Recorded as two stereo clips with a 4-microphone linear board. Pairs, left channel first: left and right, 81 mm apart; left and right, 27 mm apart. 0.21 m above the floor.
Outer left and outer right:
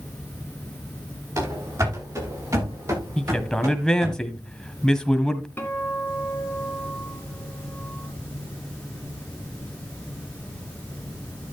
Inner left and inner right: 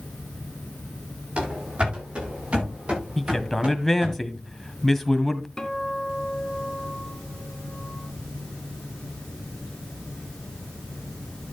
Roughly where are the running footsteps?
Right.